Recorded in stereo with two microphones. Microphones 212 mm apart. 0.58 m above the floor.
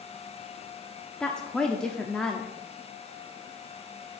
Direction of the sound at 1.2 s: 5° left (ahead or behind).